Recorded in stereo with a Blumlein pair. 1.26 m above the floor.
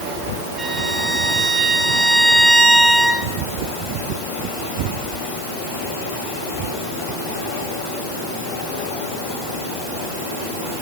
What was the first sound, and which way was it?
A violin, 15° right.